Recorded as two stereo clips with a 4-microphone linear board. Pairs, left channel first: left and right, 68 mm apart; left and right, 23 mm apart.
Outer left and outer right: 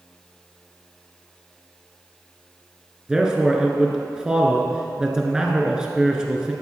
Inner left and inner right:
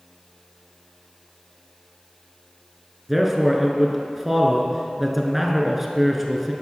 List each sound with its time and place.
3.1 s a man speaking: 10° right (ahead or behind), 1.1 m